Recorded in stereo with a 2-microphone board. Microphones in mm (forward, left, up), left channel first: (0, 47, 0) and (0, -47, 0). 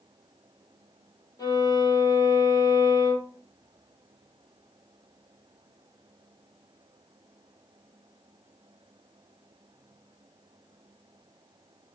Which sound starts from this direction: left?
A violin, at 1.4 s.